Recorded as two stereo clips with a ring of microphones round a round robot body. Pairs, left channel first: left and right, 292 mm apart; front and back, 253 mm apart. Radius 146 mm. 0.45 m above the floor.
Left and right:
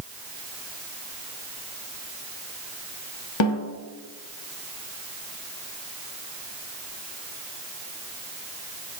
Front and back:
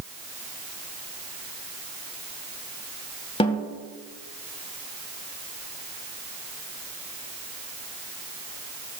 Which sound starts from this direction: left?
A snare drum, at 3.4 s.